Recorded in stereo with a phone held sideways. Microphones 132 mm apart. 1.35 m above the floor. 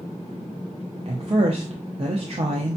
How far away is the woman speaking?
About 0.6 m.